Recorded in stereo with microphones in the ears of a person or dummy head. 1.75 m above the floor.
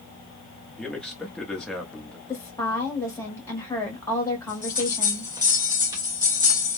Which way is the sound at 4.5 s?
20° right (ahead or behind).